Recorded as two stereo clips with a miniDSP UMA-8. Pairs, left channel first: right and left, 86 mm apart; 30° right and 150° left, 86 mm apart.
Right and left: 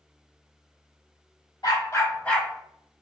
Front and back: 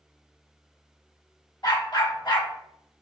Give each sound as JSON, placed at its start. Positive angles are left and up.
{"t": 1.6, "sound": "a dog barking", "azimuth_deg": -60, "distance_m": 0.6}